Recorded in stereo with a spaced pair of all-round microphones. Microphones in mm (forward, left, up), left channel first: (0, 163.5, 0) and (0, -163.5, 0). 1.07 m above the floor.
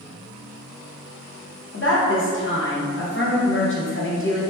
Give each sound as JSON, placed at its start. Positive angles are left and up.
{"t": 1.7, "sound": "a woman speaking", "side_deg": 40, "distance_m": 0.7}